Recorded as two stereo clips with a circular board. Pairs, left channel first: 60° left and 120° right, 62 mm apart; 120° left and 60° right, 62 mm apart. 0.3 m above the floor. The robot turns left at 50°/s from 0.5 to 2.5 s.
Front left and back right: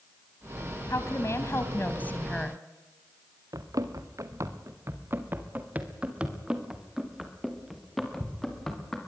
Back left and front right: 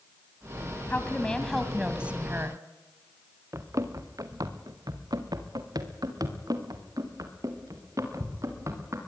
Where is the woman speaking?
65° left, 2.5 m; by 2.6 s 15° right, 2.5 m.